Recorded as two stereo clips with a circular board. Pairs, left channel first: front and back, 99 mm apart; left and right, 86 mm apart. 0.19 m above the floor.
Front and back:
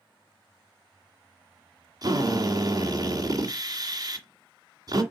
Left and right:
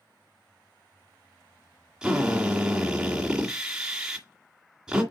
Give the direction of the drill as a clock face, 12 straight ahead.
6 o'clock.